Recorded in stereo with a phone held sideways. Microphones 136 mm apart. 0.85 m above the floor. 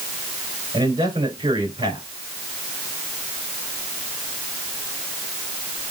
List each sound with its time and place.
0.7 s a man speaking: 40° right (ahead or behind), 3 m